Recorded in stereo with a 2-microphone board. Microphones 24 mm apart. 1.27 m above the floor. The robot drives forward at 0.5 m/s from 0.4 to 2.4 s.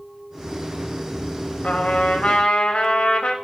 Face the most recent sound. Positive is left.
turn(degrees=60)  # may be behind; listen again after turning